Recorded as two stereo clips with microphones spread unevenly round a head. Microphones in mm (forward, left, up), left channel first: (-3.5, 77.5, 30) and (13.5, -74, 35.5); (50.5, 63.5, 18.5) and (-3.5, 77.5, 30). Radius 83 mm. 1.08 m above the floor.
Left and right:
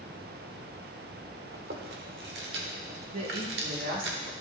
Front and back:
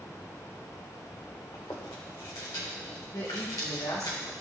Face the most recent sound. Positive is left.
turn(degrees=-55)